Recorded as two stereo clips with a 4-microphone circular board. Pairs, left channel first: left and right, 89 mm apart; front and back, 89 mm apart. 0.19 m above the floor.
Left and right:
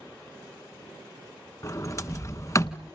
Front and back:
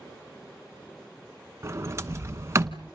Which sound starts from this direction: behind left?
A sliding door, at 1.6 s.